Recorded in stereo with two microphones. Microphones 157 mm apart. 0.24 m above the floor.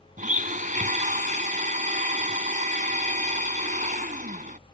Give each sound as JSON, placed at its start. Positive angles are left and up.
{"t": 0.2, "sound": "a blender", "side_deg": -55}